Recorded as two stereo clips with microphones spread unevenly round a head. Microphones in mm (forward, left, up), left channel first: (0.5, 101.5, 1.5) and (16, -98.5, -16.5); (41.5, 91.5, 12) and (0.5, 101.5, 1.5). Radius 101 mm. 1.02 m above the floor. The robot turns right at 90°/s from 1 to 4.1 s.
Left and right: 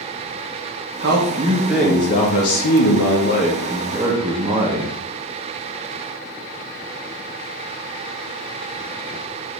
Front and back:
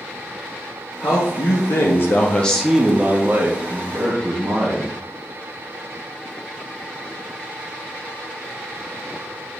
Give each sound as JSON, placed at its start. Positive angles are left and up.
{"t": 1.0, "sound": "a man speaking", "azimuth_deg": -65, "distance_m": 0.8}